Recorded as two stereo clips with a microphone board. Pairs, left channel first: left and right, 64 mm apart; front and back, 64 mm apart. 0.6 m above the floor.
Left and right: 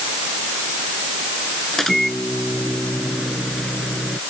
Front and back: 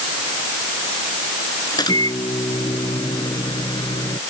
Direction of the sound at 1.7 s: 5° left.